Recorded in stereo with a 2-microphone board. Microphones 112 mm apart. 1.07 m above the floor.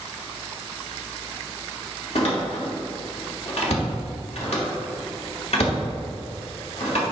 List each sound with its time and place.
2.1 s a door slam: 70° left (ahead or behind), 1.9 m